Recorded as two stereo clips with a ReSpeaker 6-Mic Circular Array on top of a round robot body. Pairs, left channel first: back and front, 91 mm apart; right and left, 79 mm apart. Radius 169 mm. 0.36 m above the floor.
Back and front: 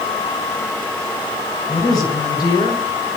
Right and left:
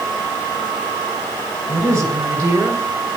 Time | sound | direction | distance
1.7 | a woman speaking | 135° left | 7 m